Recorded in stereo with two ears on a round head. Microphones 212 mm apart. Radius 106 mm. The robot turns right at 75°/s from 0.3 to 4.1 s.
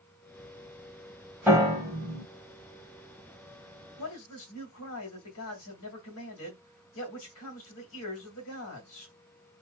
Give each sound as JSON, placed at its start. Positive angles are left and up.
{"t": 1.5, "sound": "a piano", "side_deg": -5, "distance_m": 1.8}
{"t": 4.0, "sound": "a man speaking", "side_deg": 55, "distance_m": 2.5}